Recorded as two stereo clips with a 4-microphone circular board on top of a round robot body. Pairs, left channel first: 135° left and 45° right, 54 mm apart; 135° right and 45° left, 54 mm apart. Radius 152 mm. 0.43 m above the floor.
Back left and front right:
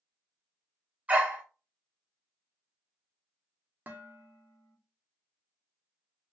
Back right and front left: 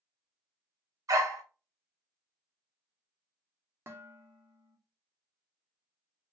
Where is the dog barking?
20° left, 0.9 m.